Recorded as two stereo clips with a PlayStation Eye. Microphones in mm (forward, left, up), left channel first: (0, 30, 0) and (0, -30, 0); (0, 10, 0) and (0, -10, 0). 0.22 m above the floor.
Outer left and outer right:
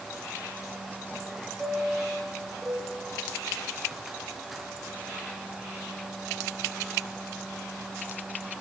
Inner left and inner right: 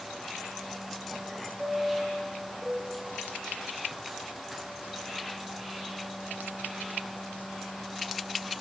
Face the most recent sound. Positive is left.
turn(degrees=0)  # may be behind; listen again after turning